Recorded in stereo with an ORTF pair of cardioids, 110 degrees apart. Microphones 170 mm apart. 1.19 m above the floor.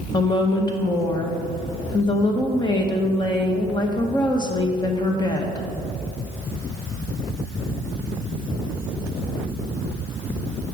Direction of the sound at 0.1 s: 25° left.